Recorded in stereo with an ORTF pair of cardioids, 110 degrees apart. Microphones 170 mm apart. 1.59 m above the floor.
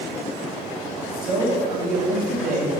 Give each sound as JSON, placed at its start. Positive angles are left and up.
{"t": 1.2, "sound": "a man speaking", "azimuth_deg": -55, "distance_m": 3.0}